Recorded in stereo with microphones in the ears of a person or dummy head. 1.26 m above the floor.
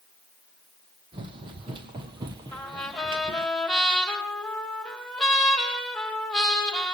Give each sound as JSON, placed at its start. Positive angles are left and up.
{"t": 1.1, "sound": "running footsteps", "side_deg": -30, "distance_m": 2.5}
{"t": 2.5, "sound": "a trumpet", "side_deg": 0, "distance_m": 6.0}